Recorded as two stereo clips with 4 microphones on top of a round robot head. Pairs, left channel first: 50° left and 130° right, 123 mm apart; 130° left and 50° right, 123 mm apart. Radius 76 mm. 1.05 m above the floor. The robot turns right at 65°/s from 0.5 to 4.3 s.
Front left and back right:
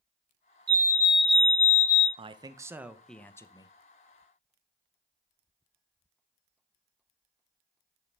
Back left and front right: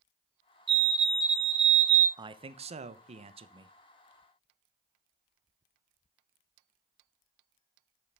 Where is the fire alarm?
85° right, 2 m; by 2.1 s 5° left, 2 m.